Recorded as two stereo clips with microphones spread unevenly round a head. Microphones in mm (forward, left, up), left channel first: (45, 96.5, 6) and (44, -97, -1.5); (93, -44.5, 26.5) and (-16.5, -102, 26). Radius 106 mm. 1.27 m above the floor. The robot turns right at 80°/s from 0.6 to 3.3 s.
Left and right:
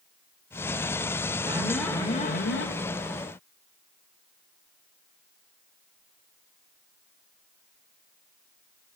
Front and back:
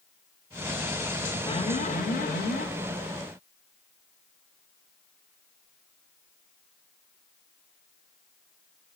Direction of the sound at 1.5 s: 25° right.